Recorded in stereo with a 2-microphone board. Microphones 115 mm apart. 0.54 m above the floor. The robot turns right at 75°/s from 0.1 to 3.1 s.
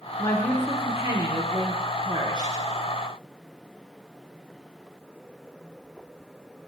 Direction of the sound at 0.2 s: 150° left.